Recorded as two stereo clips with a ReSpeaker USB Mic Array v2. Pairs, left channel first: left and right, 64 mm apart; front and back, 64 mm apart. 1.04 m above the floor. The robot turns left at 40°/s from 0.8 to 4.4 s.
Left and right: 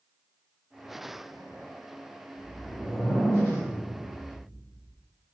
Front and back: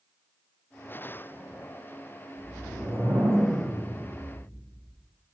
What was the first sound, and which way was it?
A whoosh, 175° right.